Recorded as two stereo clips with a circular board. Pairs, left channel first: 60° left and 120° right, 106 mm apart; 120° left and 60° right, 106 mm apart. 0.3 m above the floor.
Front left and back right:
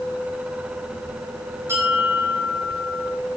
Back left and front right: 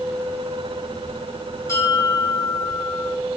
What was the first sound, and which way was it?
A bell, straight behind.